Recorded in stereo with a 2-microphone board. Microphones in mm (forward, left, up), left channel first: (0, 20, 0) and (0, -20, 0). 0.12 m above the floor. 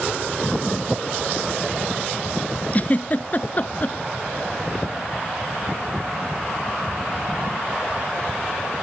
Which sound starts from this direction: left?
A giggle, at 2.7 s.